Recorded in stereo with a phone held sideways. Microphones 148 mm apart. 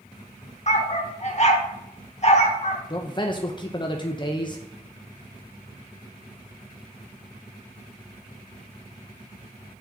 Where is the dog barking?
45° left (ahead or behind), 1.0 m.